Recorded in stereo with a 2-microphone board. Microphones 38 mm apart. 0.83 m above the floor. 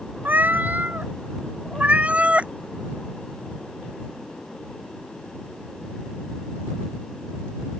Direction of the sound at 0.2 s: 45° right (ahead or behind).